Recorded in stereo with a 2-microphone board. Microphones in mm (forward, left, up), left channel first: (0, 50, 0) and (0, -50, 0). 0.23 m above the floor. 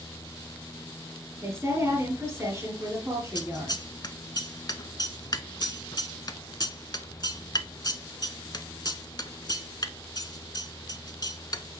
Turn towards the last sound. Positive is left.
turn(degrees=45)  # may be behind; listen again after turning